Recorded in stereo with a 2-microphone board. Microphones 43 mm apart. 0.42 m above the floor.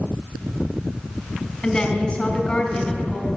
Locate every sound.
1.6 s a woman speaking: 20° left (ahead or behind), 3 m